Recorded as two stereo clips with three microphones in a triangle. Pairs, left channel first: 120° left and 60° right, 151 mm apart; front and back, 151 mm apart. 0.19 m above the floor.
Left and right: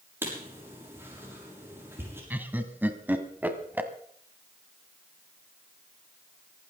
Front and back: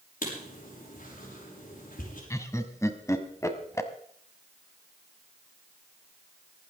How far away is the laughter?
About 1.3 m.